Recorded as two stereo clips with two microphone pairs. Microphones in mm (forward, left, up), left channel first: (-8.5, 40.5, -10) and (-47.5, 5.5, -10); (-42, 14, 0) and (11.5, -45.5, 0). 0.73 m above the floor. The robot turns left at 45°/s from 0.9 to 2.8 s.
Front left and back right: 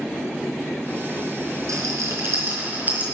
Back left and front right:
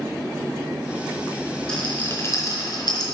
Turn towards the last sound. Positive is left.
turn(degrees=165)